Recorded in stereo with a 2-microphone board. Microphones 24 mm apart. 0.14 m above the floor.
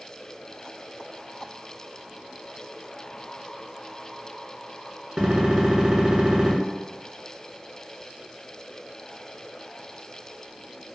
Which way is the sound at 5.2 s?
35° right (ahead or behind).